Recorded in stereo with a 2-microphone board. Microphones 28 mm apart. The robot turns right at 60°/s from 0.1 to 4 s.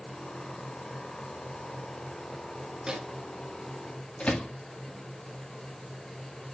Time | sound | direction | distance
2.9 | a microwave | 25° right (ahead or behind) | 1.5 m